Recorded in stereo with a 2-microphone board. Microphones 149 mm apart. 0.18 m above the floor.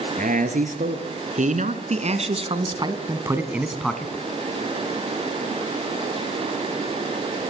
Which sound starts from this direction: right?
A man speaking, at 0.2 s.